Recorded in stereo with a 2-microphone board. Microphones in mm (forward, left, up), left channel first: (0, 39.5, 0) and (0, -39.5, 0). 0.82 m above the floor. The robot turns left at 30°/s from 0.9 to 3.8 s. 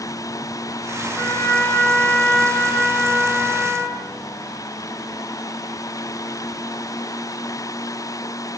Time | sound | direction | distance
1.2 | a trumpet | 45° left | 0.7 m